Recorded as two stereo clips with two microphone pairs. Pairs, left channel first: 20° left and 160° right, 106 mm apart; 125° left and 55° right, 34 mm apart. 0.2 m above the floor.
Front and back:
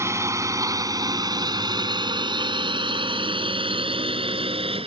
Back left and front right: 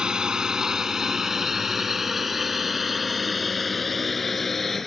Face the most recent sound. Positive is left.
turn(degrees=-150)